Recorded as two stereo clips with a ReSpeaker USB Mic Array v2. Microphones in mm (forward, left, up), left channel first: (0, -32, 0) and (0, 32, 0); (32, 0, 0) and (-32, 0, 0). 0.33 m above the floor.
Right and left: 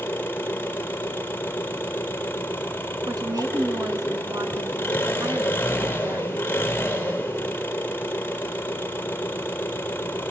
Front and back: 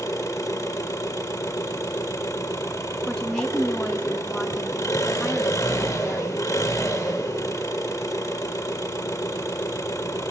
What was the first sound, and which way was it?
An engine running, 30° right.